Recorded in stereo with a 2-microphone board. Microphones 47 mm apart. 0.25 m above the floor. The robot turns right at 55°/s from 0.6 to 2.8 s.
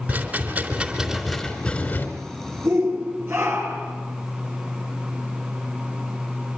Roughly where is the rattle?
Ahead right.